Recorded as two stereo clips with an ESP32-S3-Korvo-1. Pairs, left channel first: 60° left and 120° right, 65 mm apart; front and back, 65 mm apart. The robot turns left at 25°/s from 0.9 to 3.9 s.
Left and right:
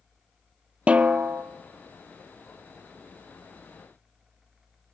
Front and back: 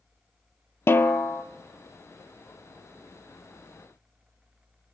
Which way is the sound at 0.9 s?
50° right.